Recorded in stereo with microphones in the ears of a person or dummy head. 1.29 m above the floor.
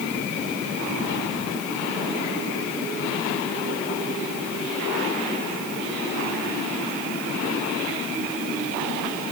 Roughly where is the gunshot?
I don't hear a gunshot.